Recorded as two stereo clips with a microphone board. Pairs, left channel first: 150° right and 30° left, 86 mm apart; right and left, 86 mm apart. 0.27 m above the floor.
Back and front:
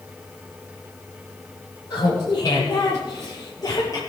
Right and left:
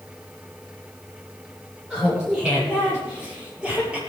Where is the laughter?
170° left, 8 m; by 4.0 s 165° left, 6.5 m.